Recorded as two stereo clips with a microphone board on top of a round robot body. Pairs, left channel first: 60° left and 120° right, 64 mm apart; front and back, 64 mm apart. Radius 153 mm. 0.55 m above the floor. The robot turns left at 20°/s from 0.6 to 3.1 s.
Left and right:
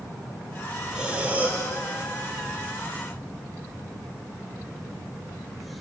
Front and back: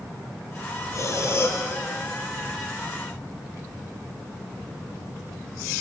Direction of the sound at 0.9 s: 40° right.